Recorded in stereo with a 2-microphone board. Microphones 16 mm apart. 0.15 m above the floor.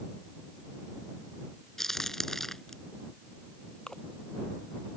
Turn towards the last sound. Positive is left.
turn(degrees=60)  # may be behind; listen again after turning